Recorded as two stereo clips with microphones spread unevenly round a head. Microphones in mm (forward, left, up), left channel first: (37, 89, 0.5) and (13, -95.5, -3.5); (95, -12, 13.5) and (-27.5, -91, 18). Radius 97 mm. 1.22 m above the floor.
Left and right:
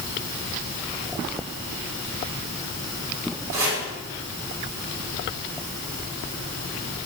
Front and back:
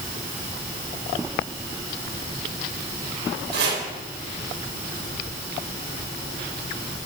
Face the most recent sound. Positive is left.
turn(degrees=-175)